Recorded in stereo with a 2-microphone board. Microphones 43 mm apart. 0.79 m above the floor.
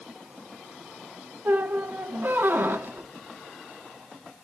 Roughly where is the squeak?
Right.